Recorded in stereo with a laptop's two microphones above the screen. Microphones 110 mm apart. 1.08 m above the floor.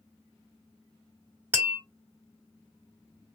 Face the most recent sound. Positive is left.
turn(degrees=-15)  # may be behind; listen again after turning